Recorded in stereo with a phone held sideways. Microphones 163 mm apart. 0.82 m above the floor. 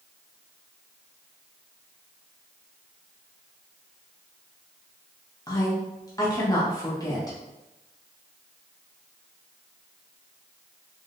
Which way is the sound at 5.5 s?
20° left (ahead or behind).